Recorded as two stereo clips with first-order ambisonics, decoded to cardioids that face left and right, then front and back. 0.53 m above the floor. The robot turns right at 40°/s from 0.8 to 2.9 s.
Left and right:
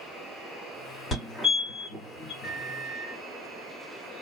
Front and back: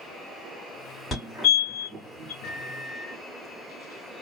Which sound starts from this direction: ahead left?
A fire alarm, at 1.1 s.